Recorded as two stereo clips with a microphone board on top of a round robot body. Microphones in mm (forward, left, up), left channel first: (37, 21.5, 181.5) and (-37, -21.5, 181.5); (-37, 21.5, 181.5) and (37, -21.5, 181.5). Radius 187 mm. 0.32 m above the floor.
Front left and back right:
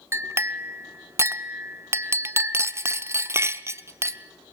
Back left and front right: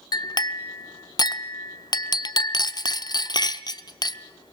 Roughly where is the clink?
Behind.